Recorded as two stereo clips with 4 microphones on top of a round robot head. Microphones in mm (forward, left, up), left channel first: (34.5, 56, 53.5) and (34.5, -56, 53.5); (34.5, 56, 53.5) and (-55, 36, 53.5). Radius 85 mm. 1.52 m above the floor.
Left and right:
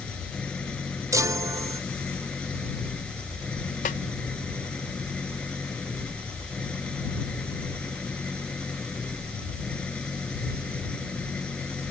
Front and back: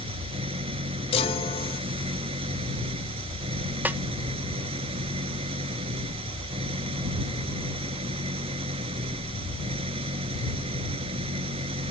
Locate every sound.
0.0 s an engine running: 175° left
1.1 s a chime: 25° right
3.9 s a snare drum: 120° left